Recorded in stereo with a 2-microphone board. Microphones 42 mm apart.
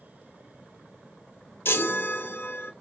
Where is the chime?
65° left (ahead or behind), 0.8 m.